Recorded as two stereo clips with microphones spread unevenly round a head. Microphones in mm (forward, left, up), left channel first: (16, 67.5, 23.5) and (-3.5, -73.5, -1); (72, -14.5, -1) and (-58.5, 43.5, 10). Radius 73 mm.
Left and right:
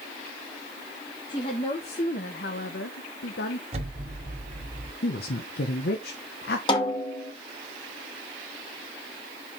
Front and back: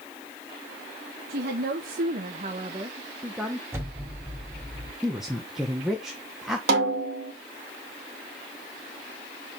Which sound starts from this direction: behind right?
An explosion, at 3.7 s.